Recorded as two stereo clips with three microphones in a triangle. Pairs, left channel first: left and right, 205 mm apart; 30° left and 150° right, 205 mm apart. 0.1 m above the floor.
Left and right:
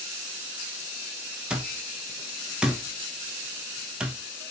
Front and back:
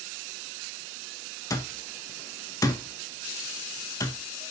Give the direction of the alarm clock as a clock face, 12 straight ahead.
12 o'clock.